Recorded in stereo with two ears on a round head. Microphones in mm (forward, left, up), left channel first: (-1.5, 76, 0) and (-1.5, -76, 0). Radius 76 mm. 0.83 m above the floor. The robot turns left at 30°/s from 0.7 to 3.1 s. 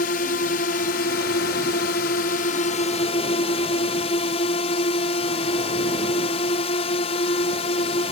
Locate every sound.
0.0 s a drone: 115° left; by 8.1 s 40° left